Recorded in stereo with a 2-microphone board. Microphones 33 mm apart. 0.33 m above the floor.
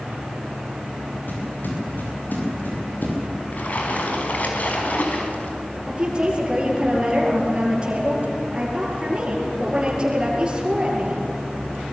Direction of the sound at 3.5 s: 55° left (ahead or behind).